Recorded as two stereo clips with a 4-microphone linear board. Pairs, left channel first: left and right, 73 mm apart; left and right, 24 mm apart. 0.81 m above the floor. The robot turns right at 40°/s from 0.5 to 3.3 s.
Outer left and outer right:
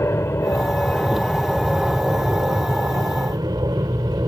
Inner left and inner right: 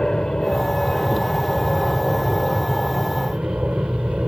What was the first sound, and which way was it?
An aircraft, 140° left.